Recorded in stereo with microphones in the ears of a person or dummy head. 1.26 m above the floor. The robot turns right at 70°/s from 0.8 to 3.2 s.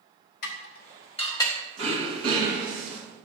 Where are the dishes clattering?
50° left (ahead or behind), 1.0 m; by 1.6 s 5° left (ahead or behind), 1.0 m.